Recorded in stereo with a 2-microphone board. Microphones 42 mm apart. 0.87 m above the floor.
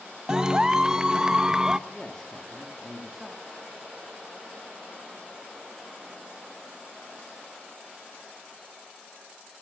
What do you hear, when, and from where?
0.3 s a clap: 20° right (ahead or behind), 0.7 m
1.9 s a man speaking: 10° left (ahead or behind), 2 m